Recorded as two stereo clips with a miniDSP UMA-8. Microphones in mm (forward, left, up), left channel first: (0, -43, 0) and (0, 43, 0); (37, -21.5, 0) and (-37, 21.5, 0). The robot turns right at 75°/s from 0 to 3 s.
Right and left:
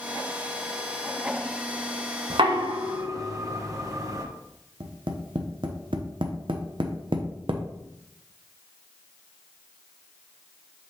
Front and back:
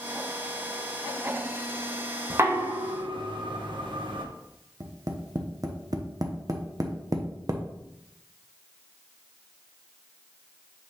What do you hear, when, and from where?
2.3 s knocking: 85° left, 1.0 m; by 4.2 s 140° left, 1.0 m
4.8 s tapping: 105° left, 0.9 m